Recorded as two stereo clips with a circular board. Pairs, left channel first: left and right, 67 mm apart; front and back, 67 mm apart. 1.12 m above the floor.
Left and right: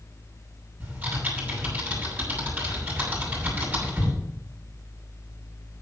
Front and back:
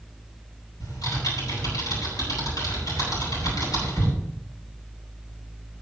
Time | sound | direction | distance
0.8 | typing on a keyboard | 25° right | 8 m